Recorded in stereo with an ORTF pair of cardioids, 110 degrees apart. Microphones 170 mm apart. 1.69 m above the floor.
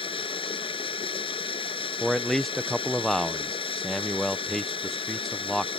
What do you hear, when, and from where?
0.0 s running water: 30° left
2.0 s a man speaking: straight ahead